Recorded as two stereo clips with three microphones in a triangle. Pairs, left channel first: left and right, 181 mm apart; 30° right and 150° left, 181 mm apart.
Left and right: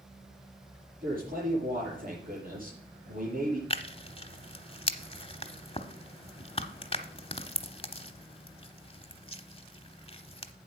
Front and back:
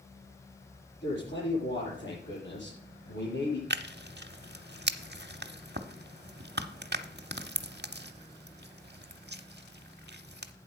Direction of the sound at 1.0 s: 45° right.